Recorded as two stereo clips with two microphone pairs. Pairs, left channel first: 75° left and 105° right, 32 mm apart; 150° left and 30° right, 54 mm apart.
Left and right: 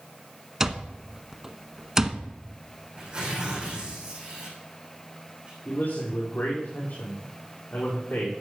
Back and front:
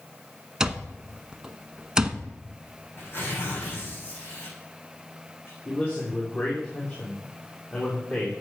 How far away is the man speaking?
About 4.5 m.